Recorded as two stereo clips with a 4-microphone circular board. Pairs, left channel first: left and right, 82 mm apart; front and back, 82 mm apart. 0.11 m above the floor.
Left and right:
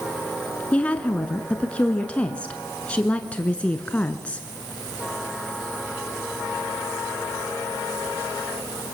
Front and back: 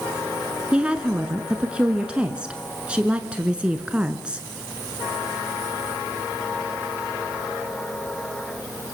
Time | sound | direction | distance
0.7 | a woman speaking | 130° left | 1.3 m